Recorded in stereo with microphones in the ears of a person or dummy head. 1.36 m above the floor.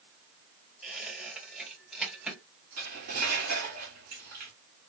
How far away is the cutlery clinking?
About 1.4 m.